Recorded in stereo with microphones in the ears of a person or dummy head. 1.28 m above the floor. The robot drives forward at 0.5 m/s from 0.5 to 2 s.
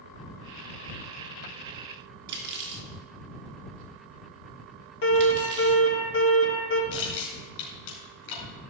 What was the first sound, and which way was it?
Cutlery clinking, 60° right (ahead or behind).